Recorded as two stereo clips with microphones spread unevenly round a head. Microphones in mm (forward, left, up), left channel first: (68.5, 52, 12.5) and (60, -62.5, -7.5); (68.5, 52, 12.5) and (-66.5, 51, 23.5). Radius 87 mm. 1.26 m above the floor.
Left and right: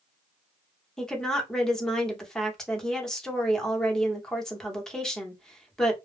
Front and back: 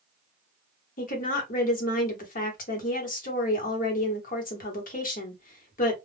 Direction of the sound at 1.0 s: 5° right.